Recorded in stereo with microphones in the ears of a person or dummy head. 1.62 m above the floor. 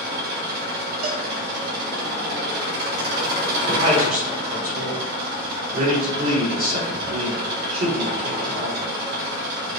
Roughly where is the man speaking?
Right.